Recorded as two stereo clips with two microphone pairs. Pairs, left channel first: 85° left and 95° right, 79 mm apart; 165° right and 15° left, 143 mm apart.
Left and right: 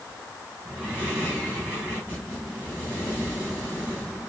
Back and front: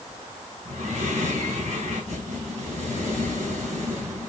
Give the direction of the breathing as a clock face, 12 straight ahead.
1 o'clock.